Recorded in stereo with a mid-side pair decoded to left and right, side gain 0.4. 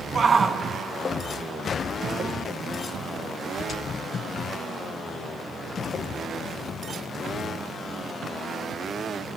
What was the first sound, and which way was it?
A shout, 45° right.